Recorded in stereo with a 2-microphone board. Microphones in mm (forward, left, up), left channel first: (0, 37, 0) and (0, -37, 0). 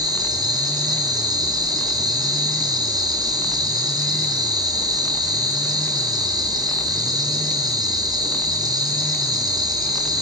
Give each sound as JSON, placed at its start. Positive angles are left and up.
{"t": 0.0, "sound": "an insect", "side_deg": -65, "distance_m": 2.5}